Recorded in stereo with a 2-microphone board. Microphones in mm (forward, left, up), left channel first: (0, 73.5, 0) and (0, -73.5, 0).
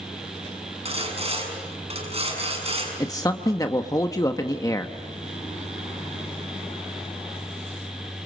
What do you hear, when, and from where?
0.8 s sawing: 45° right (ahead or behind), 6.5 m
3.0 s a man speaking: 25° left (ahead or behind), 0.9 m